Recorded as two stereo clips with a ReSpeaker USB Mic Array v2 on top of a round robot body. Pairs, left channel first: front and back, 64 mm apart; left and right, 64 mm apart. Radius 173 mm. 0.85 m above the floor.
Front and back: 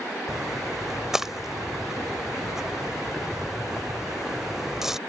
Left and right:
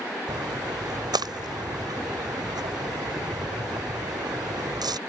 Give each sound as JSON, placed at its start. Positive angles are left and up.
{"t": 0.3, "sound": "a splash", "azimuth_deg": -100}